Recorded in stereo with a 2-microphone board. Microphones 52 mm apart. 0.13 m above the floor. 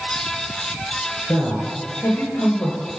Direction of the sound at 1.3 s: 50° left (ahead or behind).